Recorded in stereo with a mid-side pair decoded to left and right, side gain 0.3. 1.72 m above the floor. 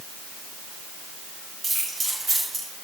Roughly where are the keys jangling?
Ahead right.